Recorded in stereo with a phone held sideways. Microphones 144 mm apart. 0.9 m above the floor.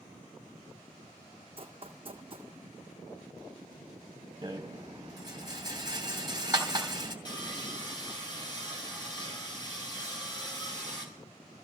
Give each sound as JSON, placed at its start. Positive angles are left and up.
{"t": 1.6, "sound": "running footsteps", "side_deg": -40, "distance_m": 2.0}
{"t": 4.4, "sound": "a rattle", "side_deg": -25, "distance_m": 3.0}
{"t": 7.2, "sound": "sawing", "side_deg": 30, "distance_m": 4.5}